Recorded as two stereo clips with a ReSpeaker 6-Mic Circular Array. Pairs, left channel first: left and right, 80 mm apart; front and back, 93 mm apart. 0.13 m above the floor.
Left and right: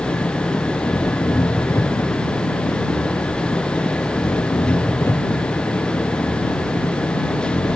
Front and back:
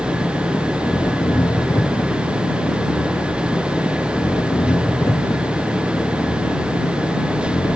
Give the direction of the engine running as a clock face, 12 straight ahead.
11 o'clock.